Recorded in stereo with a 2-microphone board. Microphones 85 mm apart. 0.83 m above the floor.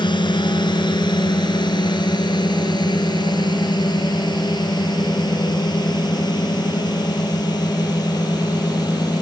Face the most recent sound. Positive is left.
turn(degrees=50)  # may be behind; listen again after turning